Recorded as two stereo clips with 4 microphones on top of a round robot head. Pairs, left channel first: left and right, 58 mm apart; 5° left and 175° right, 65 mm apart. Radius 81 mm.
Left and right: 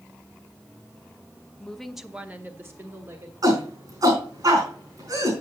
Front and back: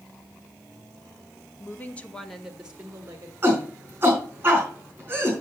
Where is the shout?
110° right, 4.5 m.